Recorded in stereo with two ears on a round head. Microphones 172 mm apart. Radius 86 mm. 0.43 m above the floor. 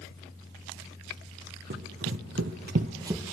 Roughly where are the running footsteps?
Right.